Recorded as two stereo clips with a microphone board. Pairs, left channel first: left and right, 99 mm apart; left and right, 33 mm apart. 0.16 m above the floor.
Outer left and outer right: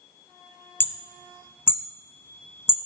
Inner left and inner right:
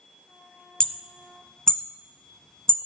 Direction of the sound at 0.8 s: 20° left (ahead or behind).